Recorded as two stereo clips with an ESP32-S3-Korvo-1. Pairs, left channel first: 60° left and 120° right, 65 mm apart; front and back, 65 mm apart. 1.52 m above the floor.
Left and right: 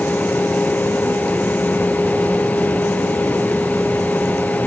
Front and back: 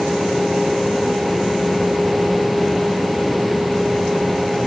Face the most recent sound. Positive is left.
No sound to turn to.